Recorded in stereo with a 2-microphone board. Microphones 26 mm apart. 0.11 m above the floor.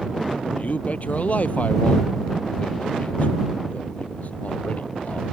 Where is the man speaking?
65° left (ahead or behind).